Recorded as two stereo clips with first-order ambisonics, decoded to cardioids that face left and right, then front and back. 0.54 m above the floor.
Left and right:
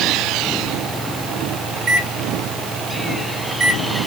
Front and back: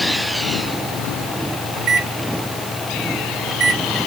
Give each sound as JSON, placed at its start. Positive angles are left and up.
{"t": 1.8, "sound": "a microwave", "azimuth_deg": -145, "distance_m": 1.2}